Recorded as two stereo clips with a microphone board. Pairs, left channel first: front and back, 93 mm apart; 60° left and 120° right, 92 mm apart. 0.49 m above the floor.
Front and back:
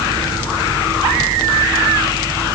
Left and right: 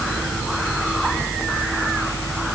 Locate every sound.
Only background noise.